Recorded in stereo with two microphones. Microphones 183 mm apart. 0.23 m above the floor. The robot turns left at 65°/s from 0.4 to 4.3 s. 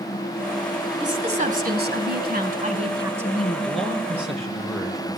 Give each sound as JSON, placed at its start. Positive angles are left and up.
{"t": 1.0, "sound": "a woman speaking", "azimuth_deg": -20, "distance_m": 2.0}
{"t": 3.6, "sound": "a man speaking", "azimuth_deg": -135, "distance_m": 4.0}